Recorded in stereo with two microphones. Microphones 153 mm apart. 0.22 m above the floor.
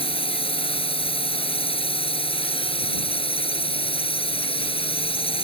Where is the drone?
35° left (ahead or behind).